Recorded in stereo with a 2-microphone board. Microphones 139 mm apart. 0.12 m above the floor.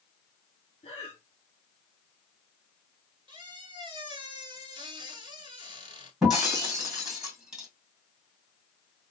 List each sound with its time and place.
0.8 s breathing: 40° left (ahead or behind), 1.1 m
3.3 s a squeak: 35° right (ahead or behind), 0.9 m
6.2 s breaking glass: 5° right (ahead or behind), 2 m